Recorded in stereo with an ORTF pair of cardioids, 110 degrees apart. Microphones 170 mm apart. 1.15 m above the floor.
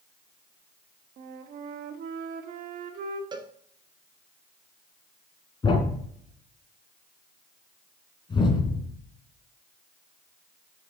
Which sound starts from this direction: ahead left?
A thud, at 5.6 s.